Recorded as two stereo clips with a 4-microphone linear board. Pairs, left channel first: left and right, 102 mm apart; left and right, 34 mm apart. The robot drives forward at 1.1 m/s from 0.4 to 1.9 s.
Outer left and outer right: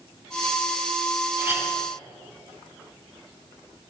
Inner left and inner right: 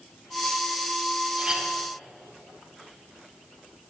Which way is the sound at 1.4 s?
20° right (ahead or behind).